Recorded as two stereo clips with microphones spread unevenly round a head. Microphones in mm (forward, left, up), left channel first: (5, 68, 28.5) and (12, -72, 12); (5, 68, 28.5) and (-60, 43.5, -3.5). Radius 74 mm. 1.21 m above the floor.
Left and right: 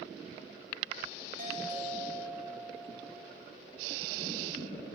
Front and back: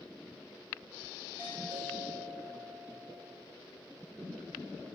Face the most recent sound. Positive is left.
turn(degrees=-65)